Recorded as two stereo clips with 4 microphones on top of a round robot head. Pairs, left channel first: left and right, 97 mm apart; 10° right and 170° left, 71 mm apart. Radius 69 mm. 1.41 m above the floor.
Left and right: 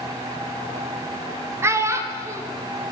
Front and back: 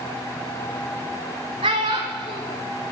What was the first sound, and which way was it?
A child speaking, 155° right.